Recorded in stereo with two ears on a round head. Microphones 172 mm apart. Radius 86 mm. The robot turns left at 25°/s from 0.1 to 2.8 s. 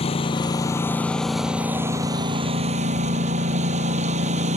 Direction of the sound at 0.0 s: 30° left.